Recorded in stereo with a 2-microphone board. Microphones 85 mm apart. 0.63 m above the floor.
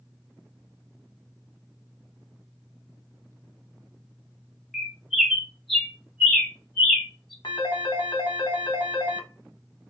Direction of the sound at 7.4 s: 65° left (ahead or behind).